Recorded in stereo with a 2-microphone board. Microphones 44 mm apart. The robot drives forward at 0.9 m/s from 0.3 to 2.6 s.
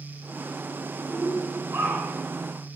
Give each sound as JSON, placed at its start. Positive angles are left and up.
{"t": 1.1, "sound": "a shout", "side_deg": -55, "distance_m": 3.0}